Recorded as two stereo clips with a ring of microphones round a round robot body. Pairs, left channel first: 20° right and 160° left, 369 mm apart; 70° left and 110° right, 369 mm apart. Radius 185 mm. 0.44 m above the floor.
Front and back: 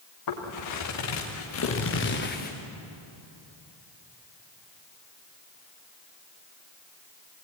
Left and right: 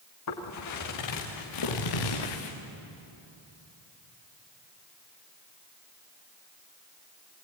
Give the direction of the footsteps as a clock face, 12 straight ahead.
11 o'clock.